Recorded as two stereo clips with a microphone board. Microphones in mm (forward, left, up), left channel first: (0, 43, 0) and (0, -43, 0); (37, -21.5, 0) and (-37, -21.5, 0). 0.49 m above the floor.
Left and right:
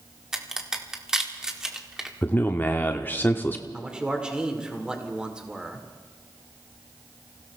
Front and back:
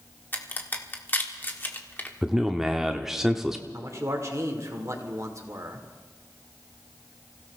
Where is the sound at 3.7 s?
165° right, 1.7 m.